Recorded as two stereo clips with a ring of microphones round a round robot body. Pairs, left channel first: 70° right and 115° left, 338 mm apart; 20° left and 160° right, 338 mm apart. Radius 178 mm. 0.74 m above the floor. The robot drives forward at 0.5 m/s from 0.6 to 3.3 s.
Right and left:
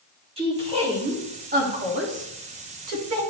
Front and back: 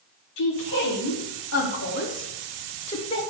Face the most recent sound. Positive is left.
turn(degrees=95)